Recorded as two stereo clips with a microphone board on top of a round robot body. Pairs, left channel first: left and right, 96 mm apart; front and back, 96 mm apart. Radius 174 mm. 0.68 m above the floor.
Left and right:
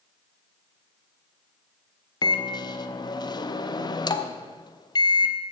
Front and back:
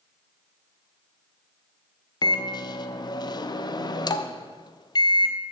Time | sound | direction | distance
2.2 | a microwave | 45° left | 0.6 m